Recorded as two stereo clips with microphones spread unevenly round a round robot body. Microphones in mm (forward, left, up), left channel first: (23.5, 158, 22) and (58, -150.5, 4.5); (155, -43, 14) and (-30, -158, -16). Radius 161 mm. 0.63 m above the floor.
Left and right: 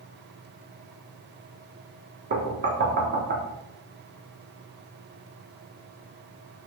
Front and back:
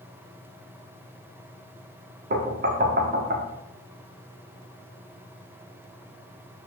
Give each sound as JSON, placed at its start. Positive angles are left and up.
{"t": 2.3, "sound": "knocking", "azimuth_deg": -130, "distance_m": 1.2}